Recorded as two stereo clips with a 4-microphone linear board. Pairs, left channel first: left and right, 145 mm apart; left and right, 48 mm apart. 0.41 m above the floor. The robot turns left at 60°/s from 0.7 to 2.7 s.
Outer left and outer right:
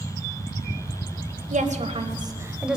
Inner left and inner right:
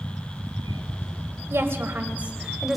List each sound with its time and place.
1.5 s a woman speaking: 100° right, 1.4 m; by 2.8 s 175° right, 1.4 m